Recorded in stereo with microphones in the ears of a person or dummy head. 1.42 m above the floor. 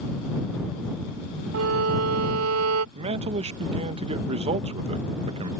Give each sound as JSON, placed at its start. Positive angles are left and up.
{"t": 1.5, "sound": "a violin", "side_deg": -85}
{"t": 3.0, "sound": "a man speaking", "side_deg": -35}